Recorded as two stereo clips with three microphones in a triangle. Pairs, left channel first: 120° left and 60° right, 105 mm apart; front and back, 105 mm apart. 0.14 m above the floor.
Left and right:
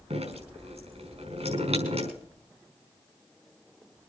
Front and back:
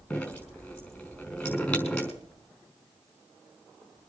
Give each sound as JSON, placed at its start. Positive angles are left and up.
{"t": 0.1, "sound": "dripping", "azimuth_deg": -75, "distance_m": 5.5}